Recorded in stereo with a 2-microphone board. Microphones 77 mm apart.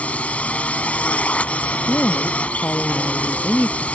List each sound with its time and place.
0.0 s a drone: 15° left (ahead or behind)
1.9 s a woman speaking: 25° left (ahead or behind)